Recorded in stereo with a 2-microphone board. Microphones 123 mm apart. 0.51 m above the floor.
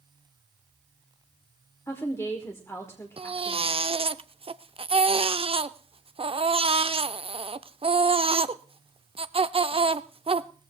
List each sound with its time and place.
1.9 s a woman speaking: 20° left (ahead or behind), 1.4 m
3.2 s a baby crying: 45° right (ahead or behind), 0.5 m